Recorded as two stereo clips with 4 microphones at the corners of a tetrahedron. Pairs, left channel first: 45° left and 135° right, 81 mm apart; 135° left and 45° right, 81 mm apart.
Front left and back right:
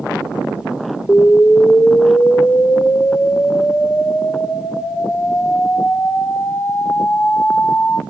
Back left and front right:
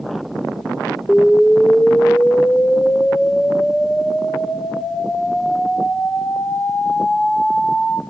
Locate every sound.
1.1 s an explosion: 75° left, 1.2 m